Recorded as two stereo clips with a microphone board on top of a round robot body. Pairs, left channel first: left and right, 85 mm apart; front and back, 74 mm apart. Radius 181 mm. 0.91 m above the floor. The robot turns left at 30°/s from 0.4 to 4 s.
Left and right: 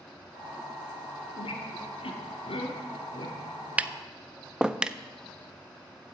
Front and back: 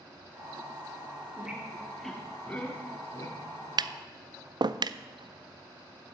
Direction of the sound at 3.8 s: 165° right.